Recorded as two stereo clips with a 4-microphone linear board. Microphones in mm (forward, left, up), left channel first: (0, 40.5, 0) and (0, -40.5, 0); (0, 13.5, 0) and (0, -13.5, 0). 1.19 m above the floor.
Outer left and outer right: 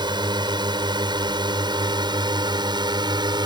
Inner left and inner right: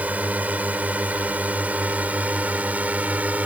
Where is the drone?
65° right (ahead or behind).